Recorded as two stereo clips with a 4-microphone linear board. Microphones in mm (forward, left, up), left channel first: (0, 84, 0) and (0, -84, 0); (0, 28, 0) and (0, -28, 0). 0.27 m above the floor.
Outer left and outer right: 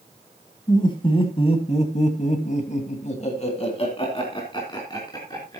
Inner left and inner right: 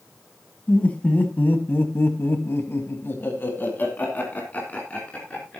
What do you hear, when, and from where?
0.7 s laughter: 25° left (ahead or behind), 2.5 m